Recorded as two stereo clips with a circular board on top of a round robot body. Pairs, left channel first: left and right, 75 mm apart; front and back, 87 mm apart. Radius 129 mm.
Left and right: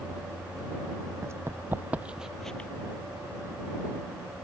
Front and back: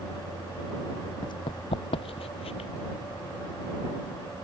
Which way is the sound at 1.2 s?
35° right.